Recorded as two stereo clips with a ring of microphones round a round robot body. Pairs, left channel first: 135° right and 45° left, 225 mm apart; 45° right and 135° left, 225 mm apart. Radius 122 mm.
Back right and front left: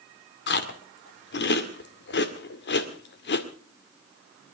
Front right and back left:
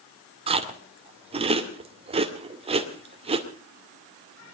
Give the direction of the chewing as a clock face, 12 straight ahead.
5 o'clock.